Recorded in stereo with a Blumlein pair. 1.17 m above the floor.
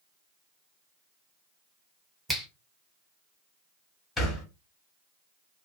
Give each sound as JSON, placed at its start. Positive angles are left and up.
{"t": 2.3, "sound": "a finger snap", "azimuth_deg": -5, "distance_m": 0.8}
{"t": 4.2, "sound": "a thud", "azimuth_deg": 15, "distance_m": 1.4}